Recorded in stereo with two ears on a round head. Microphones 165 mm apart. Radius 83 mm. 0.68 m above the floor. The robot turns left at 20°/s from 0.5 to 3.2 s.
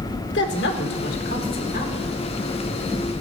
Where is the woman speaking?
70° left (ahead or behind), 1.6 m; by 2.1 s 45° left (ahead or behind), 1.6 m.